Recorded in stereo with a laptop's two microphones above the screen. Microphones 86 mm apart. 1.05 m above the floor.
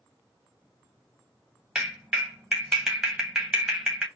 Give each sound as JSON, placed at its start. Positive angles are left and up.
{"t": 1.8, "sound": "a clap", "side_deg": -10, "distance_m": 1.0}